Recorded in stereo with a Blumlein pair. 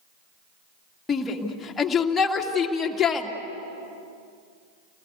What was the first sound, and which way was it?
A shout, 15° left.